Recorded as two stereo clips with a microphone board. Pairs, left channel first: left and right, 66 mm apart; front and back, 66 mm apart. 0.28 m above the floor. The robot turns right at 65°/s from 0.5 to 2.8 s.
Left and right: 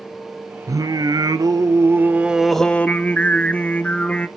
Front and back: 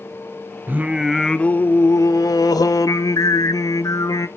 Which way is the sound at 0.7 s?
120° right.